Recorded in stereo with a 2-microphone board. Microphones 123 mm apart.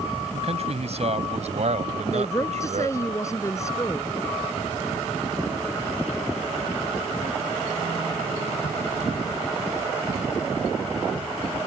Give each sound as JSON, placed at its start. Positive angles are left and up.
{"t": 0.3, "sound": "a man speaking", "side_deg": -60}
{"t": 2.1, "sound": "a woman speaking", "side_deg": 25}